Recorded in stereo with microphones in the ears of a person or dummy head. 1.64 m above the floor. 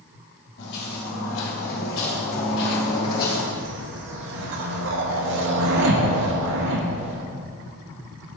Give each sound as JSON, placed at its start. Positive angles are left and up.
{"t": 0.6, "sound": "footsteps", "side_deg": 55, "distance_m": 3.0}
{"t": 3.5, "sound": "a whoosh", "side_deg": -70, "distance_m": 0.9}